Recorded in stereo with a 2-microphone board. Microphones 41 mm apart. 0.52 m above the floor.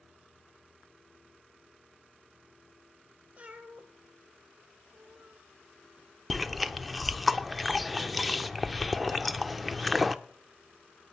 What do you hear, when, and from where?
3.4 s a cat meowing: 35° right (ahead or behind), 1.8 m
6.3 s chewing: centre (ahead or behind), 0.5 m